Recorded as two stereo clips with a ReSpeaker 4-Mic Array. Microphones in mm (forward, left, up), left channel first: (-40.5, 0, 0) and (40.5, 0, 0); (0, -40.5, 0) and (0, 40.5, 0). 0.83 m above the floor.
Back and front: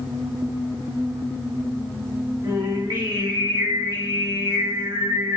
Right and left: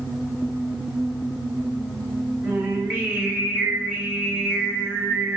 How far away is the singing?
About 1.2 m.